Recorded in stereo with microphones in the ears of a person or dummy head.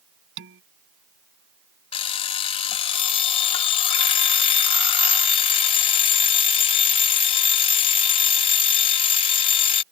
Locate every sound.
0.4 s dishes clattering: 60° right (ahead or behind)
1.9 s an alarm clock: 40° left (ahead or behind)